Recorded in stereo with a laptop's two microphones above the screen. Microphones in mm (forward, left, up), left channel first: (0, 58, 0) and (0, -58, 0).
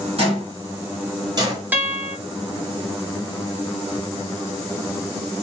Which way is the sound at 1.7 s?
15° right (ahead or behind).